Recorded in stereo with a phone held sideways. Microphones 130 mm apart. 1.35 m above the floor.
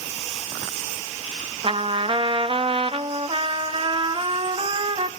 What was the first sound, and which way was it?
A trumpet, 40° right (ahead or behind).